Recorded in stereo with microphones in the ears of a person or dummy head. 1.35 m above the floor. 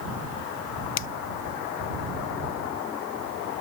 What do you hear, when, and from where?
1.0 s a finger snap: 65° left (ahead or behind)